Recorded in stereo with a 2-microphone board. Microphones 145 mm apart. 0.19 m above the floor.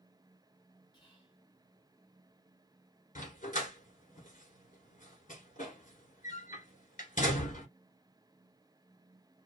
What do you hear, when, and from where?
0.9 s whispering: 30° left (ahead or behind), 1.8 m
3.1 s a dog barking: 65° left (ahead or behind), 1.2 m